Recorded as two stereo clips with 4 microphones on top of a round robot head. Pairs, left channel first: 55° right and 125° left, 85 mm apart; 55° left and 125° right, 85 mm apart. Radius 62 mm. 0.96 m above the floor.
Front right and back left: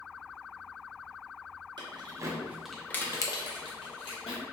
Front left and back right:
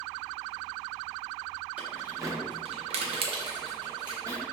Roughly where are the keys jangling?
Behind.